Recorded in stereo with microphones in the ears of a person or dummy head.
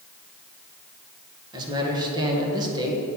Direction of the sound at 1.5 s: 25° right (ahead or behind).